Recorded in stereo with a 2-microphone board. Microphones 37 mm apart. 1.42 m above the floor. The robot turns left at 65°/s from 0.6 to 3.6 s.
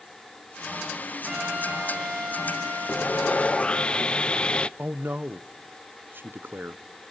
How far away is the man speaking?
About 0.9 m.